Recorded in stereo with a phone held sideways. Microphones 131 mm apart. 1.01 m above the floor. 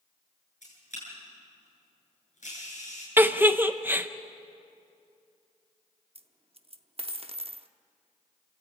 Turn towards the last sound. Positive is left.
turn(degrees=-50)  # may be behind; listen again after turning